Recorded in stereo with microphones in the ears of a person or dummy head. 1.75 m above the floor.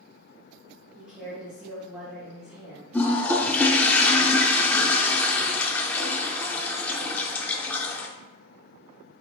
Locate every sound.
0.9 s a woman speaking: 10° right (ahead or behind), 1.2 m
2.9 s a toilet flushing: 10° left (ahead or behind), 0.5 m